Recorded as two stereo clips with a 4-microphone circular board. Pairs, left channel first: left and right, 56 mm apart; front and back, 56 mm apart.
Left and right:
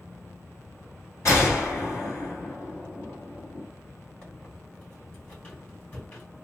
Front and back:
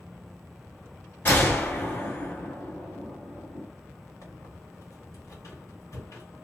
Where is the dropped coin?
I don't hear a dropped coin.